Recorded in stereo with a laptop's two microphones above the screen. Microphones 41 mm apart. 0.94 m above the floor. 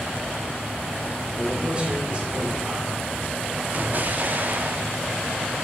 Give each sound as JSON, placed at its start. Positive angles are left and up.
{"t": 1.3, "sound": "a man speaking", "side_deg": -30, "distance_m": 3.5}
{"t": 3.7, "sound": "an explosion", "side_deg": -45, "distance_m": 0.6}